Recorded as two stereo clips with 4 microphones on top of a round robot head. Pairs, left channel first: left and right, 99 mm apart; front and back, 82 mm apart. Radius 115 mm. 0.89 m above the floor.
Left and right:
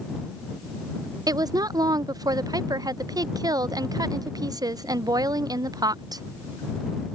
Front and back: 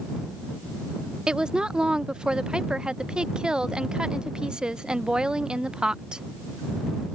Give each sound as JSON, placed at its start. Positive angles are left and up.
{"t": 1.3, "sound": "a woman speaking", "azimuth_deg": -105}